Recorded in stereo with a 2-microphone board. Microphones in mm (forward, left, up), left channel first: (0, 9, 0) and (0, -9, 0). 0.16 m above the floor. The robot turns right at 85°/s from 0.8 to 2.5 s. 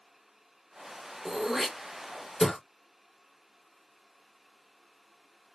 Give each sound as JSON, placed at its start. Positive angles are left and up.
{"t": 1.2, "sound": "throat clearing", "side_deg": -35, "distance_m": 1.2}